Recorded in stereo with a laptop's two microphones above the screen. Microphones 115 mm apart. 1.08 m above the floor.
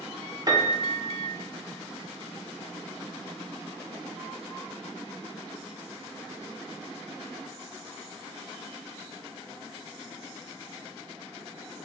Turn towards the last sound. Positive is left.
turn(degrees=-35)  # may be behind; listen again after turning